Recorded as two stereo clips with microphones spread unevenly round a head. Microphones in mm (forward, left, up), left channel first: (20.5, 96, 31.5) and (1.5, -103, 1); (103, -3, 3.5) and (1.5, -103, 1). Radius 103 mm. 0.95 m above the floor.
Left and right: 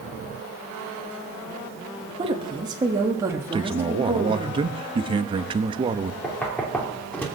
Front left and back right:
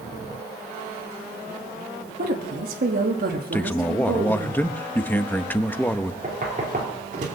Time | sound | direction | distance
2.2 | a woman speaking | 155° right | 1.3 m
3.5 | a man speaking | 35° right | 0.9 m
6.2 | knocking | 170° left | 2.5 m